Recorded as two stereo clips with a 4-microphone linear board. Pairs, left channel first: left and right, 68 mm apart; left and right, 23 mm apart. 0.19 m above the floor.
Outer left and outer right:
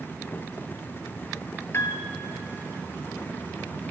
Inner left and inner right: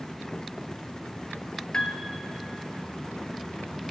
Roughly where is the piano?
Left.